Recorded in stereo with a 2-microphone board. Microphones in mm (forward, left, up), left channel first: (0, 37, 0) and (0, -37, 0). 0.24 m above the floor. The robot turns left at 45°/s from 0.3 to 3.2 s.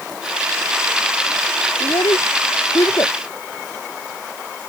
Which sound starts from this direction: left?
A child speaking, at 1.8 s.